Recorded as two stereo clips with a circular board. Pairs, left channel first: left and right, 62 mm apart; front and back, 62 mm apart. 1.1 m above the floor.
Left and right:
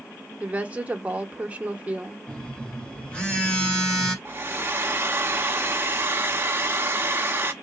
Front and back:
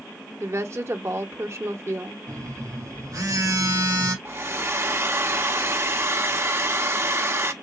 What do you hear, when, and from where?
0.4 s a woman speaking: 150° right, 1.0 m
2.3 s a phone buzzing: 165° left, 2.5 m
4.2 s a hair dryer: 140° right, 0.8 m